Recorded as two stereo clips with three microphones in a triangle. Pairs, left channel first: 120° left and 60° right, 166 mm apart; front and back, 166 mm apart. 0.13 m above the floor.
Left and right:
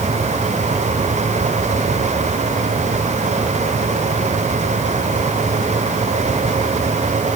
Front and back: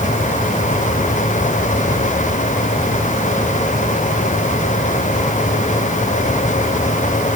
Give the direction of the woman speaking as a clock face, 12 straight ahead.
No woman speaking in this recording.